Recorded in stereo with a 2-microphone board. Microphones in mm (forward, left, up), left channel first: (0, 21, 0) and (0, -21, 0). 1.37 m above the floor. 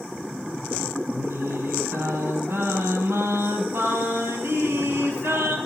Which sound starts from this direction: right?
Singing, at 1.1 s.